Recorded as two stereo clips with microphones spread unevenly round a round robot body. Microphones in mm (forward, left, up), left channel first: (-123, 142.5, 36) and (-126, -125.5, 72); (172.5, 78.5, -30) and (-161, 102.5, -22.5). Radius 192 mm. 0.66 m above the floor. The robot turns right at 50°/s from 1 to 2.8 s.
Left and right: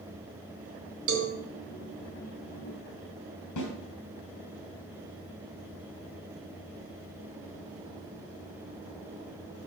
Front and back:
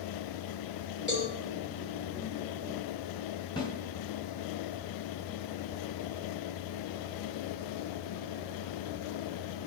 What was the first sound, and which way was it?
A cowbell, 95° right.